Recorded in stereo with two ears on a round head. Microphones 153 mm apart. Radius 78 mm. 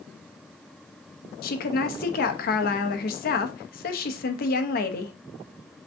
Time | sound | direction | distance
1.4 | a woman speaking | 60° left (ahead or behind) | 0.8 m